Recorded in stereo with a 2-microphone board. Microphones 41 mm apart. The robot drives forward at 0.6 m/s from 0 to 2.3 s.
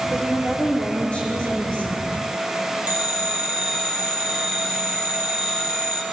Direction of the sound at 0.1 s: 25° left (ahead or behind).